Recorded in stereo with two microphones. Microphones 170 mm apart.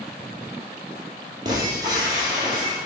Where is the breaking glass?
25° right (ahead or behind), 2.5 m.